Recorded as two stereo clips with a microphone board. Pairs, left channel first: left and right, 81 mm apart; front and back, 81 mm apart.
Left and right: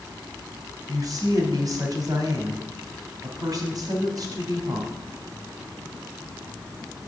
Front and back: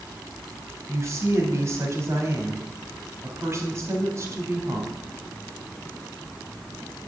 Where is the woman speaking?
125° right, 3 m.